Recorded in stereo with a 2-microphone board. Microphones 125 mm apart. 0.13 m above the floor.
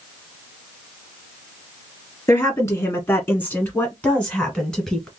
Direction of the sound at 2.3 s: 20° left (ahead or behind).